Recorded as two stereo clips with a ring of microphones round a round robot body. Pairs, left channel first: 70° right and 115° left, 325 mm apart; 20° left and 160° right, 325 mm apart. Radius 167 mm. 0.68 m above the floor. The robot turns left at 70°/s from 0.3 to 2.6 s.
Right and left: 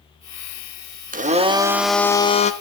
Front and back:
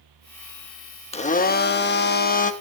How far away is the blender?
About 1.2 m.